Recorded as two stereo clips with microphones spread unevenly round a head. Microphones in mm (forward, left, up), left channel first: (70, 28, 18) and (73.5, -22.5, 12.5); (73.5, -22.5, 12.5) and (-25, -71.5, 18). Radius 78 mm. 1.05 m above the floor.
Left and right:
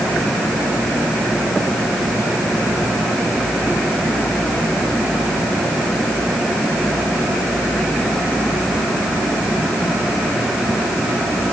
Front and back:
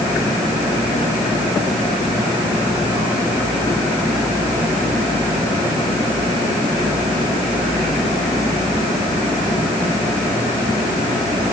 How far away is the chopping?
I don't hear chopping.